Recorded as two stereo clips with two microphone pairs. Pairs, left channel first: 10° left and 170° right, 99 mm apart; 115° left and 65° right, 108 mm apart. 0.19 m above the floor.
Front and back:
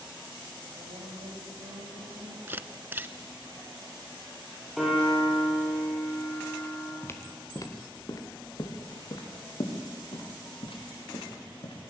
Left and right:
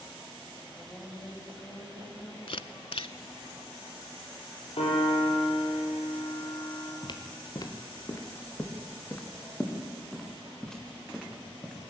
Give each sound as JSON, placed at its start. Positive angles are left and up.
{"t": 0.7, "sound": "a woman speaking", "azimuth_deg": -165, "distance_m": 7.0}
{"t": 2.5, "sound": "a camera shutter", "azimuth_deg": 130, "distance_m": 0.6}
{"t": 4.8, "sound": "a piano", "azimuth_deg": 100, "distance_m": 7.0}
{"t": 7.0, "sound": "footsteps", "azimuth_deg": 75, "distance_m": 2.5}